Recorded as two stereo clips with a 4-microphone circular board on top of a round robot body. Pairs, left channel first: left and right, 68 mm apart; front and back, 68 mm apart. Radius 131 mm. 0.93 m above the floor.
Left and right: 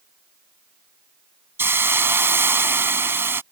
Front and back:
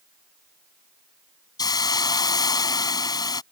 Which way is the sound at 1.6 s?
35° right.